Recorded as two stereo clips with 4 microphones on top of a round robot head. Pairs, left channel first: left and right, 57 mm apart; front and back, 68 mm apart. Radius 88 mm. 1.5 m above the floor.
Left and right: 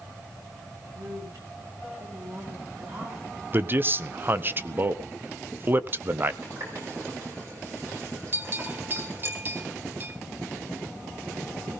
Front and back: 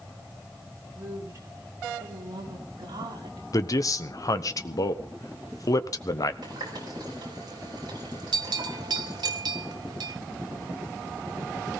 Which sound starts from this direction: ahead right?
A man speaking, at 3.5 s.